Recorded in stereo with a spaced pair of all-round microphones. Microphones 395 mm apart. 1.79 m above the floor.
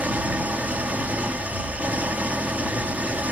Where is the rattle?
I don't hear a rattle.